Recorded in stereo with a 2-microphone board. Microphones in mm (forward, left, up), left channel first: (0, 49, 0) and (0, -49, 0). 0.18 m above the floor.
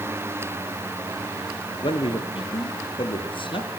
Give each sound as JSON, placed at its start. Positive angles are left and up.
{"t": 1.7, "sound": "a man speaking", "side_deg": 60, "distance_m": 2.5}